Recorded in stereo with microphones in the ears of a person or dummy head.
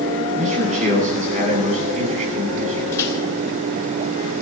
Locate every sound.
0.3 s a man speaking: 45° right (ahead or behind), 9.5 m
2.9 s a microwave: 15° left (ahead or behind), 4 m